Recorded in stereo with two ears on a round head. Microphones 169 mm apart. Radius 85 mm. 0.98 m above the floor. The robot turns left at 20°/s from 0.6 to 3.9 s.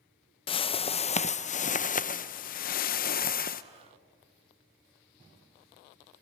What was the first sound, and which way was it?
A whoosh, 140° left.